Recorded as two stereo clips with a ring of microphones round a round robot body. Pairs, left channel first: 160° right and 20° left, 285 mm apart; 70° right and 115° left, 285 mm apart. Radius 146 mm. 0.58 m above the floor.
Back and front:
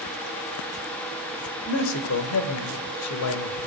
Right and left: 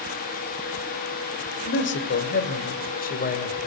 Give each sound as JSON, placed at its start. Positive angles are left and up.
{"t": 1.7, "sound": "a man speaking", "azimuth_deg": -115, "distance_m": 2.5}